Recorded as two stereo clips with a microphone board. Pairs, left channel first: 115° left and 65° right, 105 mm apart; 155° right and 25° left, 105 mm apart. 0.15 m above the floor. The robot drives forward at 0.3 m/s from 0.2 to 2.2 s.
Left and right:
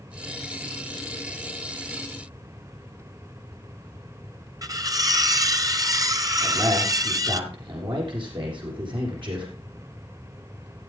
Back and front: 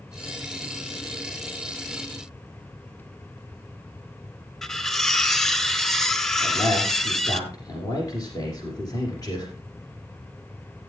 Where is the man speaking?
105° right, 7 m.